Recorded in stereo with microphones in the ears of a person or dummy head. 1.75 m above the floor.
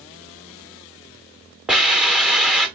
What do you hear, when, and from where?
1.7 s a hiss: 5° right (ahead or behind), 1.0 m